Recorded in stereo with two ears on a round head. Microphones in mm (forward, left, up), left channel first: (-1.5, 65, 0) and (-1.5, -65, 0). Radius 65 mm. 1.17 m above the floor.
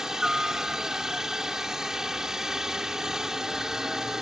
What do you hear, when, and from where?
0.0 s a helicopter: 5° right (ahead or behind)